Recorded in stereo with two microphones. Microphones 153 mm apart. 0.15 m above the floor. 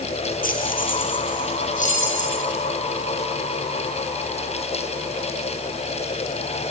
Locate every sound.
0.4 s keys jangling: 70° left (ahead or behind), 2 m; by 2.3 s 55° left (ahead or behind), 4.5 m